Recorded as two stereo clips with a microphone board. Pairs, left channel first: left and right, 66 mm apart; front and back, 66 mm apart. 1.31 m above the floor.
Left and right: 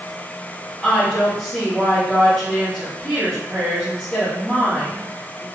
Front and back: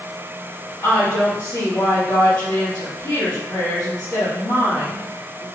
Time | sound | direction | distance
0.8 | a woman speaking | 5° left | 1.8 m